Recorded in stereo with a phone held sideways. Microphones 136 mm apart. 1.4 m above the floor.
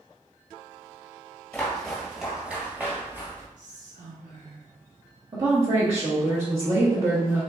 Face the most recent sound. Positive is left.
turn(degrees=-40)  # may be behind; listen again after turning